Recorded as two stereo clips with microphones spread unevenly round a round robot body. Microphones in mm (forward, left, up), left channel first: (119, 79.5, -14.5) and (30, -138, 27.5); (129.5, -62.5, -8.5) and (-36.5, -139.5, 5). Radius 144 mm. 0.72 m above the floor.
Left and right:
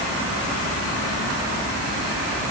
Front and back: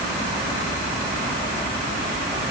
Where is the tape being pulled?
No tape being pulled in this recording.